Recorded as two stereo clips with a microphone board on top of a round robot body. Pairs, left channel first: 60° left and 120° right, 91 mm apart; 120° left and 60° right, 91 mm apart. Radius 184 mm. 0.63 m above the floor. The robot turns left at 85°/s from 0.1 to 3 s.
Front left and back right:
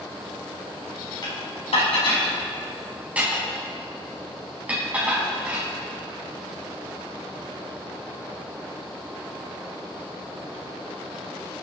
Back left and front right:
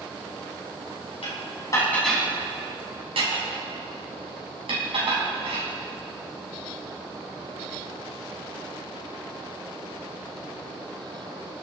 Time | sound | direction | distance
1.2 | dishes clattering | 105° left | 5 m